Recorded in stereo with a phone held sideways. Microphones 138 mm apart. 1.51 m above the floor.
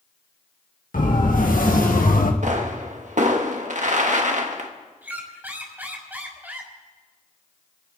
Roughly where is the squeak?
Centre.